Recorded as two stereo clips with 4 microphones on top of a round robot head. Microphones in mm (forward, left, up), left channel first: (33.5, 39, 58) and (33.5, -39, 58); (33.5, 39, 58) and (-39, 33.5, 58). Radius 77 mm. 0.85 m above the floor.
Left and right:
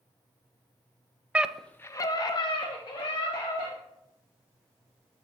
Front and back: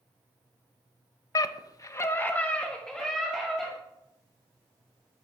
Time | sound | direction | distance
1.4 | a scream | 20° right | 0.6 m